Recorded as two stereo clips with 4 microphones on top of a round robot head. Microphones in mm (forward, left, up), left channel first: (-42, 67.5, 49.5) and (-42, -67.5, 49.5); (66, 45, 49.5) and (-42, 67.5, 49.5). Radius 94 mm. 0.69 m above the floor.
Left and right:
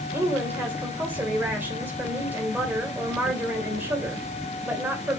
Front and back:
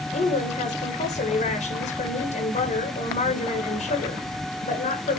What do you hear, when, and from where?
0.1 s a woman speaking: 10° right, 2.5 m